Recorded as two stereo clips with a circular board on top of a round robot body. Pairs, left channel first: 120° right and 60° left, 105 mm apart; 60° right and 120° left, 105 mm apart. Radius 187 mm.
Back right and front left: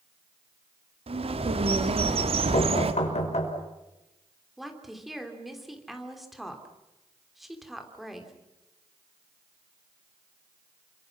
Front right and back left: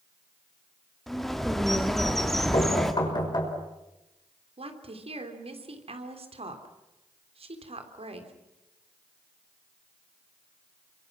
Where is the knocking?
105° right, 5.5 m.